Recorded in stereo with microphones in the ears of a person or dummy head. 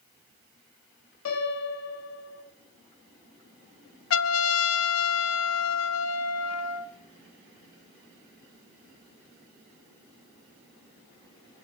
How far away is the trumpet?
About 0.5 m.